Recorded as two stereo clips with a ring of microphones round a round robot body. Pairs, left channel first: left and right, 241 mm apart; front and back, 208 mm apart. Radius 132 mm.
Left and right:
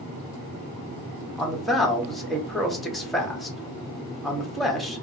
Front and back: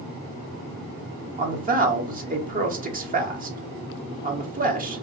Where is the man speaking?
Straight behind, 1.0 m.